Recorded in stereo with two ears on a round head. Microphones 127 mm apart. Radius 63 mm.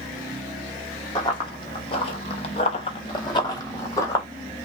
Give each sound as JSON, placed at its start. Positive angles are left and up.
{"t": 1.1, "sound": "running footsteps", "side_deg": 30, "distance_m": 0.9}